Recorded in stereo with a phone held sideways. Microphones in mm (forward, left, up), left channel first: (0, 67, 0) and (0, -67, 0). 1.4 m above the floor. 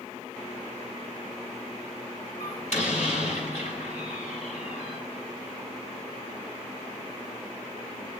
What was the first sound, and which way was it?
A door slam, 65° left (ahead or behind).